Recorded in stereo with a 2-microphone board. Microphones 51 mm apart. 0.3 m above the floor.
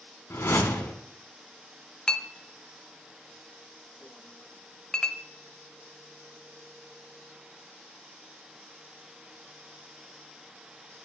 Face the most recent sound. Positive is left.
turn(degrees=15)  # may be behind; listen again after turning